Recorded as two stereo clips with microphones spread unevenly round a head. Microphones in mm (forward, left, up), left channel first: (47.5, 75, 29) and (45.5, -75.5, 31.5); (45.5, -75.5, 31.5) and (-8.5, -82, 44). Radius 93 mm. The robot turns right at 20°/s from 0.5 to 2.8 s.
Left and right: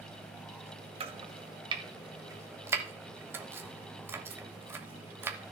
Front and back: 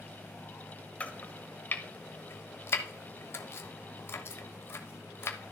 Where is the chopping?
60° right, 0.9 m; by 5.5 s 25° right, 0.9 m.